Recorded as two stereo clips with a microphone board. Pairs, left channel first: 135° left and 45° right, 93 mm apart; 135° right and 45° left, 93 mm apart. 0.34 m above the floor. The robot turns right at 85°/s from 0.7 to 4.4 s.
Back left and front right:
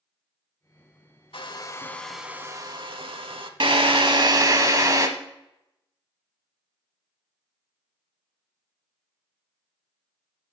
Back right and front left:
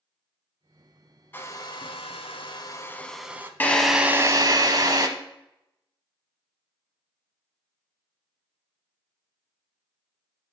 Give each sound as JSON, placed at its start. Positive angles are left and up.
{"t": 1.3, "sound": "a hair dryer", "azimuth_deg": 155, "distance_m": 0.6}
{"t": 3.6, "sound": "a drill", "azimuth_deg": -65, "distance_m": 0.9}